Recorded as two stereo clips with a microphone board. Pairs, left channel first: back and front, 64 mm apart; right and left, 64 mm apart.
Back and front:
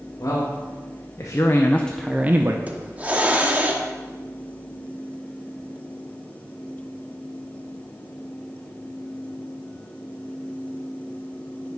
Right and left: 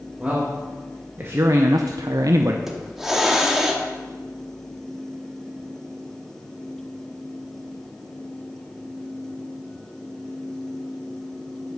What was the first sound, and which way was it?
A man speaking, 160° left.